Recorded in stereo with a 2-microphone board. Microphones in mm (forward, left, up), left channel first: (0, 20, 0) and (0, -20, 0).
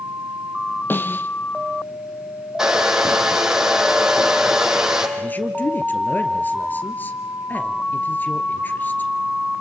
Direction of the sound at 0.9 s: 55° left (ahead or behind).